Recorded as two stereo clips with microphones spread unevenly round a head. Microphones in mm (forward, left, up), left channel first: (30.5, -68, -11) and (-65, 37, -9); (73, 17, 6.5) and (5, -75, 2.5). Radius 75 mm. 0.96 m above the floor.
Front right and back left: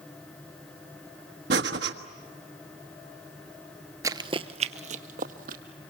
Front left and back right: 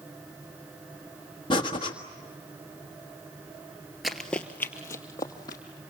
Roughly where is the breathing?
Behind left.